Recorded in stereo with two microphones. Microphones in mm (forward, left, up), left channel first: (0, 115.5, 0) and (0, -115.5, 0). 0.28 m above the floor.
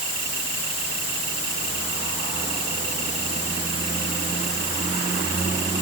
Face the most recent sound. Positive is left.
No sound to turn to.